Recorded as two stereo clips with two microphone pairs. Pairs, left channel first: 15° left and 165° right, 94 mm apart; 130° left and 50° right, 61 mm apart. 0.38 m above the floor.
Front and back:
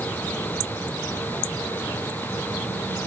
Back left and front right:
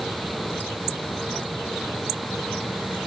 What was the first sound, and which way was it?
Only background noise.